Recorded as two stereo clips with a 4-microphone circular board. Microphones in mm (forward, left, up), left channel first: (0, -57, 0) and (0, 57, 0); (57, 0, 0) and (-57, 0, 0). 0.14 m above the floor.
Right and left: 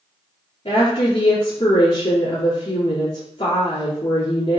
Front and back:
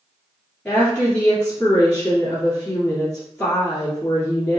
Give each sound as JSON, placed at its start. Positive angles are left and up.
{"t": 0.7, "sound": "a woman speaking", "azimuth_deg": -70, "distance_m": 2.0}